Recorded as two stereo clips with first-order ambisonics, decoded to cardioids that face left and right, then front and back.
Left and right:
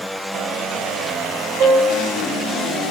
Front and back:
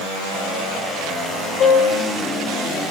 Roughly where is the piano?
Ahead right.